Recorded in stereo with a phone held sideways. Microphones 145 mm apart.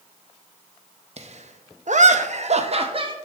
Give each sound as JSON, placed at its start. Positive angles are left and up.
{"t": 1.2, "sound": "laughter", "side_deg": -50, "distance_m": 0.9}